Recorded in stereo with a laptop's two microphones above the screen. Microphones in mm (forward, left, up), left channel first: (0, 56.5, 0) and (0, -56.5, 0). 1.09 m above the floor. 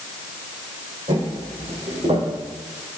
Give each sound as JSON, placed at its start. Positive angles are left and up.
{"t": 1.1, "sound": "footsteps", "side_deg": -70, "distance_m": 3.0}